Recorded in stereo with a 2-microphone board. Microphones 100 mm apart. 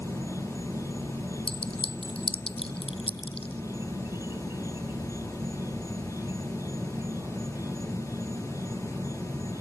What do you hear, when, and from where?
0.0 s an insect: 25° right (ahead or behind)
1.5 s a clink: 70° left (ahead or behind)